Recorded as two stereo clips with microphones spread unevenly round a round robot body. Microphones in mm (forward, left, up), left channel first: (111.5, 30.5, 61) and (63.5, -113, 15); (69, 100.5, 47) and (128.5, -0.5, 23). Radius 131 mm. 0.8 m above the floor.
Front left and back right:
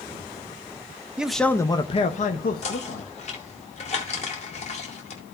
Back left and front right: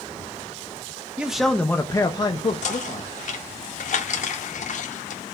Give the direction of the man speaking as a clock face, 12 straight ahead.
3 o'clock.